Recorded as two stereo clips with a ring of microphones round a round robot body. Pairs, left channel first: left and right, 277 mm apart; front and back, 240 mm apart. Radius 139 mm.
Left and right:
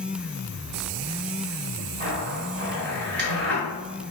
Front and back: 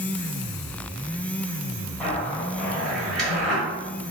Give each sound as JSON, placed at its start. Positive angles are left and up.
{"t": 2.0, "sound": "a zipper", "azimuth_deg": -85, "distance_m": 1.5}